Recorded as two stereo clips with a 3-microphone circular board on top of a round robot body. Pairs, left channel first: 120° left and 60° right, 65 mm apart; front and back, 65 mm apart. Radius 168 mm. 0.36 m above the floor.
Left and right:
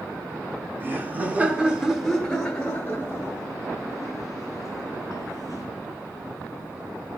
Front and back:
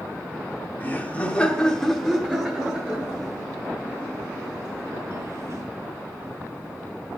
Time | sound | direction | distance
0.8 | laughter | 40° right | 1.3 m